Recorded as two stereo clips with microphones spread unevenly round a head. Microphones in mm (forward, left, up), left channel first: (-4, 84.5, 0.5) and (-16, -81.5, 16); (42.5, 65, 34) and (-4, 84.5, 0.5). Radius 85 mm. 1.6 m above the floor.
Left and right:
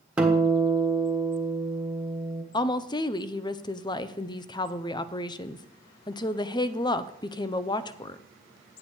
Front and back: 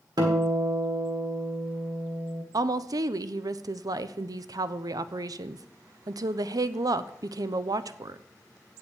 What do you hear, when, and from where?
0.2 s a guitar: 165° right, 1.4 m
2.5 s a woman speaking: 155° left, 0.5 m